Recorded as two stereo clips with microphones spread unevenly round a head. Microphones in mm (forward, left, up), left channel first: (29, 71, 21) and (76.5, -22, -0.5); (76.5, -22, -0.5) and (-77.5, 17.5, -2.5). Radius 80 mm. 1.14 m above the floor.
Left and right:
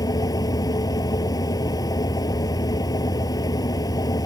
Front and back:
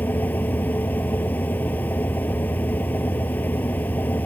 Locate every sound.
0.0 s a fan: 65° left